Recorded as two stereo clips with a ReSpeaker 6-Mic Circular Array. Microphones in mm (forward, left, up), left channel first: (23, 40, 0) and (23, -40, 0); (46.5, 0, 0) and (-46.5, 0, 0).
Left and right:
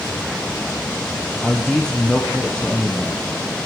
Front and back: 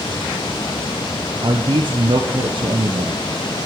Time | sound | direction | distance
1.4 | a man speaking | 170° left | 0.7 m